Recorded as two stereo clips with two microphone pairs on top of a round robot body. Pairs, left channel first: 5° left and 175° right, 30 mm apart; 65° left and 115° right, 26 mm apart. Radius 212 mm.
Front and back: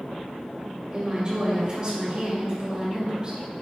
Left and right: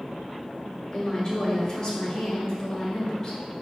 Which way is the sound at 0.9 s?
120° left.